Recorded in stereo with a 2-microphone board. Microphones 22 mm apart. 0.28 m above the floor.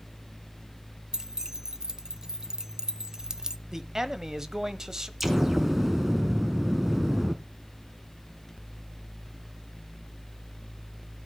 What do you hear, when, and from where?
1.1 s keys jangling: 35° right (ahead or behind), 0.7 m
3.7 s a man speaking: 25° right (ahead or behind), 1.1 m
5.2 s an explosion: 15° right (ahead or behind), 1.4 m